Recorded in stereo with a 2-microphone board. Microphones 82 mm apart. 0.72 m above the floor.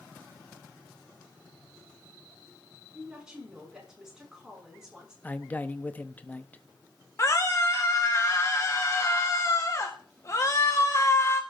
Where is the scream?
40° left (ahead or behind), 1.1 m.